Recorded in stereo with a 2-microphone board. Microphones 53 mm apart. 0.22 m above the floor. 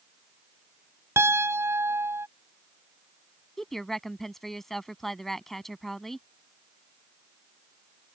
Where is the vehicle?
I don't hear a vehicle.